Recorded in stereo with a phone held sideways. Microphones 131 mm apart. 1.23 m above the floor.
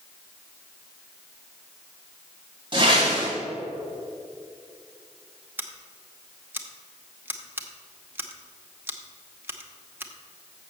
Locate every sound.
2.7 s a whoosh: 40° right (ahead or behind), 3 m
5.6 s scissors: 15° right (ahead or behind), 0.9 m